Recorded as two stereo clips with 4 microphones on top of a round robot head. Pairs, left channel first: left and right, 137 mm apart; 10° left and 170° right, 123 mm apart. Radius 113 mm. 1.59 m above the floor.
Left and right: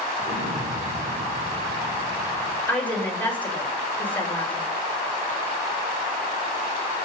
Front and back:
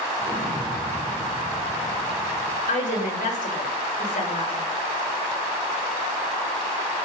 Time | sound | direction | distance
0.2 | an explosion | 60° right | 5.5 m
2.7 | a woman speaking | 10° left | 7 m